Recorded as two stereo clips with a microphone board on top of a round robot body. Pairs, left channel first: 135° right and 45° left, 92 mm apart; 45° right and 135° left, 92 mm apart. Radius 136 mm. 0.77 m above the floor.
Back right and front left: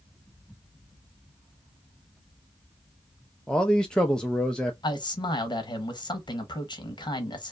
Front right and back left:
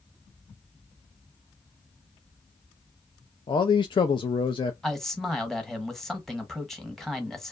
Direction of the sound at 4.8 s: 130° right.